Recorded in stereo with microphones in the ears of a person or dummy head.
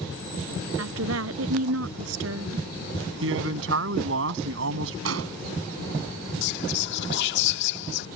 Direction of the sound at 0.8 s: 85° right.